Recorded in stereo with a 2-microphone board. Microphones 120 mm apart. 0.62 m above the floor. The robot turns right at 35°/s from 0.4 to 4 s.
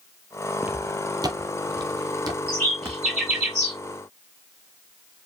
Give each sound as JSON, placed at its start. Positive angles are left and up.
{"t": 0.6, "sound": "footsteps", "side_deg": -10, "distance_m": 0.6}
{"t": 2.5, "sound": "a bird", "side_deg": 15, "distance_m": 2.0}